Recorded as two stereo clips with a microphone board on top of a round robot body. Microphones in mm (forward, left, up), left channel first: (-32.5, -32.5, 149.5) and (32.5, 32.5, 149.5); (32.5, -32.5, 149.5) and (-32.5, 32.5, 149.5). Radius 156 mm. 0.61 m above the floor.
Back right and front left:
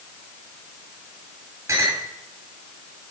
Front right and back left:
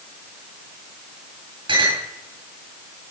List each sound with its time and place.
1.7 s a clink: 105° left, 8 m